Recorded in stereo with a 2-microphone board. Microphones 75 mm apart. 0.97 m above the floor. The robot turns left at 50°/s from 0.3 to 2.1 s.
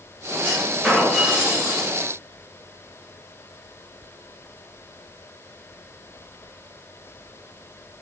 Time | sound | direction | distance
0.4 | a clunk | 20° left | 1.0 m